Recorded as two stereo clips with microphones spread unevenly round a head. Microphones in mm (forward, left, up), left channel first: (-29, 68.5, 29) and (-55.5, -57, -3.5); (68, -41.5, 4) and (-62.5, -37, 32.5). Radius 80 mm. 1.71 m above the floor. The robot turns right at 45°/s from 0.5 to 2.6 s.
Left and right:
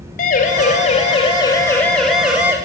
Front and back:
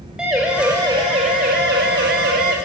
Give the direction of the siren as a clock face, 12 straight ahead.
9 o'clock.